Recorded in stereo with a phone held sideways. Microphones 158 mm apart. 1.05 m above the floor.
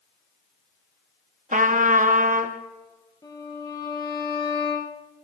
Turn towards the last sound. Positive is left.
turn(degrees=25)  # may be behind; listen again after turning